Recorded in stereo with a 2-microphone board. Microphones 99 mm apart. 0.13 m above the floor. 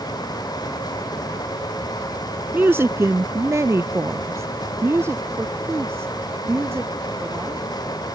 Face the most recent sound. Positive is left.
turn(degrees=-25)  # may be behind; listen again after turning